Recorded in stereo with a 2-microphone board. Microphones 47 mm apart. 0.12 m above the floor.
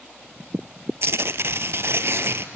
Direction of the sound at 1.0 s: 65° right (ahead or behind).